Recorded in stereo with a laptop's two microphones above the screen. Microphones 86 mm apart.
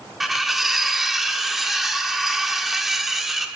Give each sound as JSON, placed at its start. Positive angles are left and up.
{"t": 0.2, "sound": "cutlery clinking", "side_deg": -5, "distance_m": 1.6}